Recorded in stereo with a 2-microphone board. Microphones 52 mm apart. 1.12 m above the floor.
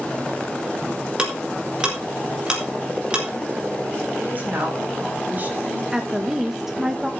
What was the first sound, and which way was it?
Ticking, 20° right (ahead or behind).